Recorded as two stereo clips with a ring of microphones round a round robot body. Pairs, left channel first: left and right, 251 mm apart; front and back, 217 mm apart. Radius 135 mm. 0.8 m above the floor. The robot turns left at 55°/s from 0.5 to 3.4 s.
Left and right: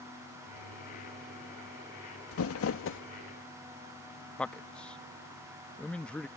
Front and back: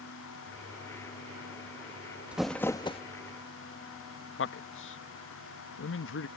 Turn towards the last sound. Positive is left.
turn(degrees=5)